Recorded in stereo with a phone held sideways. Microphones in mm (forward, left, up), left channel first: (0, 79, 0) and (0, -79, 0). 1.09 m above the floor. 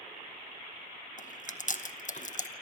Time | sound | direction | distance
1.2 | chewing | 55° left (ahead or behind) | 0.9 m